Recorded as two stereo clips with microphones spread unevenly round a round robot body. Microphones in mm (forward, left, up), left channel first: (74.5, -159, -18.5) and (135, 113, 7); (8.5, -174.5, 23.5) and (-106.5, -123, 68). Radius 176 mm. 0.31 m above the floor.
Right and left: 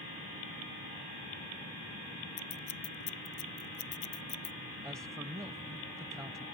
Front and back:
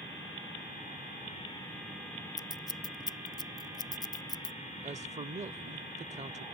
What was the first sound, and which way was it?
Scissors, 90° right.